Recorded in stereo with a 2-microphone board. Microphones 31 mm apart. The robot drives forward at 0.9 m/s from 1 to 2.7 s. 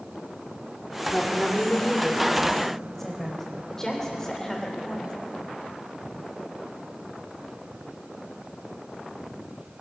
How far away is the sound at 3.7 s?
About 3 m.